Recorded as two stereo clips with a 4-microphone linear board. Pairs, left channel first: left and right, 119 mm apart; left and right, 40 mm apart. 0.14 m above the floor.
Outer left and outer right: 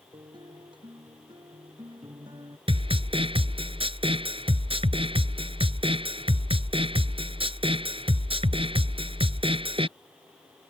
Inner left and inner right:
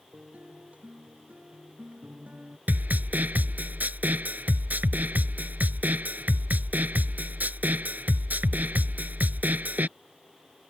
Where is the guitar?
40° right (ahead or behind).